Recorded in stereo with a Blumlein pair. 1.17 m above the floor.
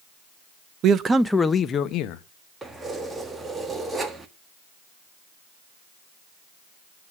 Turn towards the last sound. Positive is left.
turn(degrees=-10)